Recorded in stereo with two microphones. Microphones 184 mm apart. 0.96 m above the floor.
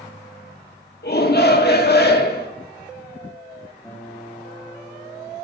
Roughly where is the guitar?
Centre.